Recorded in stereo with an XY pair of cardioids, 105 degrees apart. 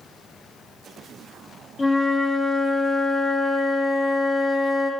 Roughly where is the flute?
Ahead left.